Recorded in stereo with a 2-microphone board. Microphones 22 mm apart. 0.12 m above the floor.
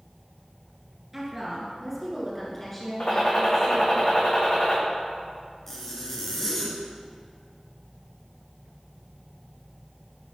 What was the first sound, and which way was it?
A woman speaking, 20° right (ahead or behind).